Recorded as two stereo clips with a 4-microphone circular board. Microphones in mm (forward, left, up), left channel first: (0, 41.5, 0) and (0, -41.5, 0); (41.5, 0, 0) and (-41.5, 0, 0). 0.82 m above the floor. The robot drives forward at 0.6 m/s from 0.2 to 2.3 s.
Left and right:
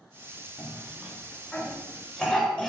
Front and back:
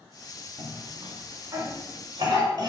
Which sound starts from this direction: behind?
A cough, at 0.6 s.